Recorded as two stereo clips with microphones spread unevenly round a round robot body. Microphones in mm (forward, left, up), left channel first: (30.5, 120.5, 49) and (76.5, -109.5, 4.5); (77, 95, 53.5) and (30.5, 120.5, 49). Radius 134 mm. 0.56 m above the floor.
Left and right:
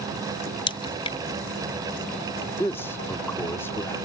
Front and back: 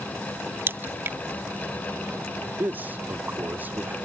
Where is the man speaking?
170° right.